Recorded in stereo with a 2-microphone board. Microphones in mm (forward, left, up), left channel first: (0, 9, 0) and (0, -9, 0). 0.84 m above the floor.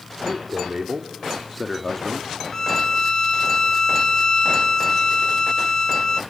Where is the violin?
25° left (ahead or behind), 0.7 m.